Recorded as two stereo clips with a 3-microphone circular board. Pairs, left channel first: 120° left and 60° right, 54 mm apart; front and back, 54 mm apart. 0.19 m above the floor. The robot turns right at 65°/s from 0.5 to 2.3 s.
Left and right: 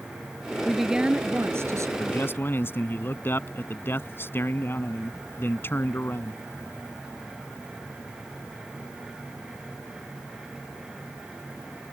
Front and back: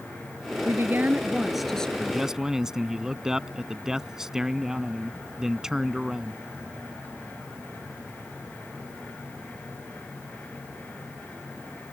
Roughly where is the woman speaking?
Behind right.